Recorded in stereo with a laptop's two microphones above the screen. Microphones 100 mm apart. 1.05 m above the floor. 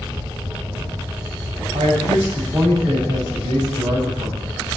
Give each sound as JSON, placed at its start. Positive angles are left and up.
{"t": 1.7, "sound": "a man speaking", "side_deg": -75, "distance_m": 7.5}